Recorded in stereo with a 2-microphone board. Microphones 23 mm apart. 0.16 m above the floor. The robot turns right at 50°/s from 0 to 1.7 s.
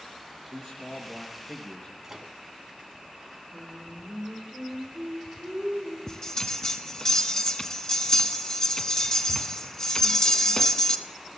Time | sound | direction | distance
0.5 | a man speaking | 45° right | 2.5 m
2.0 | a microwave | 25° right (ahead or behind) | 0.8 m
3.5 | singing | 60° right (ahead or behind) | 6.5 m
6.1 | a bell | 30° left (ahead or behind) | 0.7 m